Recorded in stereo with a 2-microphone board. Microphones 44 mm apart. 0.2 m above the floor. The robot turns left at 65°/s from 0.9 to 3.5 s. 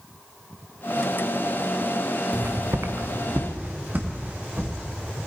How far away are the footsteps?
About 1.0 m.